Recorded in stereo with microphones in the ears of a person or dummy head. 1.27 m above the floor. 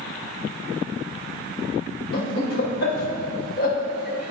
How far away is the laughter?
About 1.6 m.